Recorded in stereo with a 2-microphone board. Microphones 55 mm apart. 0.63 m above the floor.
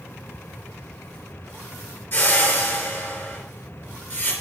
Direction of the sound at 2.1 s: 45° left (ahead or behind).